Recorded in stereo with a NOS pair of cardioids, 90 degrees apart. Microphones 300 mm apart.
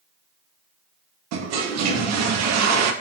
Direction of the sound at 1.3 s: 65° right.